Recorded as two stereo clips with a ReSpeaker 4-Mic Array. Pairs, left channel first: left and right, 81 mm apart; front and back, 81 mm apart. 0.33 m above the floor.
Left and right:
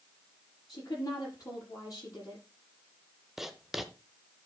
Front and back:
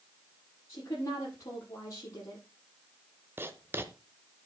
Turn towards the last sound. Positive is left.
turn(degrees=-175)